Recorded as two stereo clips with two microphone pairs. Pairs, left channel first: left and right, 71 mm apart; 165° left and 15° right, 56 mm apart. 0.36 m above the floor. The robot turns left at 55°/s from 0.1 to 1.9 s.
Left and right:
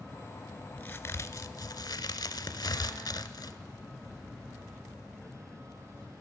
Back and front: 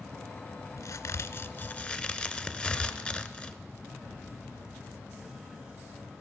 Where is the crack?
155° left, 0.6 m; by 3.6 s 95° left, 0.6 m.